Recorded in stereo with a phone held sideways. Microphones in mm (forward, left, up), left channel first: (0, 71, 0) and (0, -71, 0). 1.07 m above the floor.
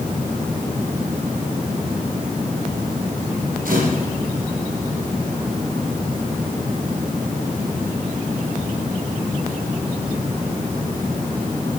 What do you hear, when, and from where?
3.6 s a camera shutter: 70° right (ahead or behind), 5 m